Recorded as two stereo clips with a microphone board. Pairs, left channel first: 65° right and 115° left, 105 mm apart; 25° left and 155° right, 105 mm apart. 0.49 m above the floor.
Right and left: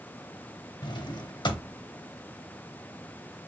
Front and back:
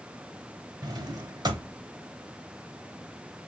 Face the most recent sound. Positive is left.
turn(degrees=-110)